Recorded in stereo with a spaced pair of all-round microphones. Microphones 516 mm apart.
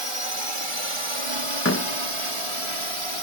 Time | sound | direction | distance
0.0 | a drone | 70° right (ahead or behind) | ?
1.6 | a door slam | 25° left (ahead or behind) | ?